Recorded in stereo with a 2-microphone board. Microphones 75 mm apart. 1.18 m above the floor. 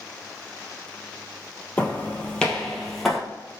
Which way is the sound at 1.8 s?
20° left (ahead or behind).